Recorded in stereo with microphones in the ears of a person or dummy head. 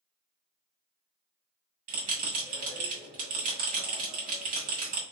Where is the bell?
45° right (ahead or behind), 1.7 m.